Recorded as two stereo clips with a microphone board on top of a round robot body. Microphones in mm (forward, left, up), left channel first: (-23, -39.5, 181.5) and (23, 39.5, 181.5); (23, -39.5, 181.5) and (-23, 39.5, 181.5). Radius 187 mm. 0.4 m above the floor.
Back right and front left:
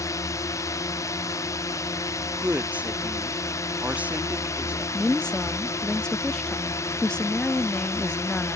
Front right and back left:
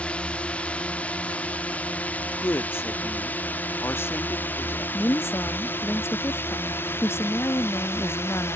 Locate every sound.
0.0 s a drone: 130° right; by 8.6 s 100° right
2.4 s a woman speaking: 10° right
4.9 s a woman speaking: 50° right